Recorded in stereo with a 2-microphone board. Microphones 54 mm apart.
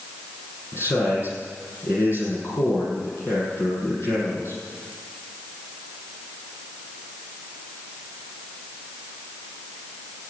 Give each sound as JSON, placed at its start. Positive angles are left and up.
{"t": 0.7, "sound": "a man speaking", "side_deg": 50, "distance_m": 8.0}